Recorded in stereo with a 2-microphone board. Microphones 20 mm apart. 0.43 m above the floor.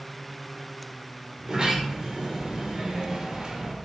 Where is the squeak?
I don't hear a squeak.